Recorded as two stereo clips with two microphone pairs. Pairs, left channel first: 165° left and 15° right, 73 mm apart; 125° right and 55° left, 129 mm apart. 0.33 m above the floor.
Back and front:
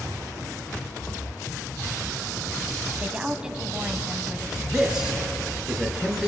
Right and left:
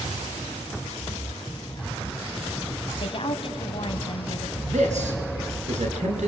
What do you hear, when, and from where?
3.0 s a woman speaking: 90° right, 2.5 m
4.7 s a man speaking: 65° left, 4 m